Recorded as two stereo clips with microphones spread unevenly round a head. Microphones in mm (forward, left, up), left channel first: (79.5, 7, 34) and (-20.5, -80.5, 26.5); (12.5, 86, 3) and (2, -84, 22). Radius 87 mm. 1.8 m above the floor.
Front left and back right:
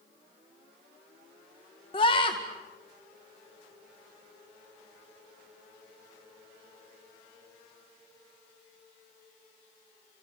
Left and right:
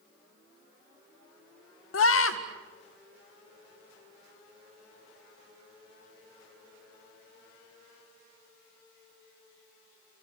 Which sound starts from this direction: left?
A scream, at 1.9 s.